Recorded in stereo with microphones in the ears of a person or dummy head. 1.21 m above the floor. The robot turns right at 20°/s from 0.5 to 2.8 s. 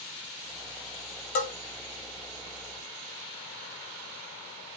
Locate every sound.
1.4 s a bell: 40° left (ahead or behind), 0.7 m